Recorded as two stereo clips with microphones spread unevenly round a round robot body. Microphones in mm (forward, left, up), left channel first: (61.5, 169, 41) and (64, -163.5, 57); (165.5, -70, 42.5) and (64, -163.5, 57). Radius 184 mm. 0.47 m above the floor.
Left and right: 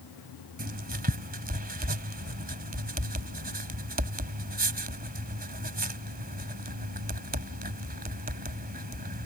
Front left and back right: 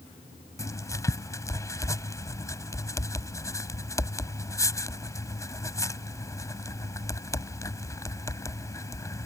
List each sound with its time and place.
0.6 s writing: 25° right